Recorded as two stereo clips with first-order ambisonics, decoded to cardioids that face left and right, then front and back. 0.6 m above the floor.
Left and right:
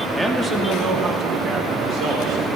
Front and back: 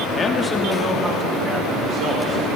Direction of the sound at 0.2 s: 15° right.